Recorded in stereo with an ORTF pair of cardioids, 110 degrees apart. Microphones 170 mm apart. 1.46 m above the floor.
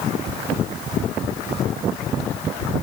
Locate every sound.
Only background noise.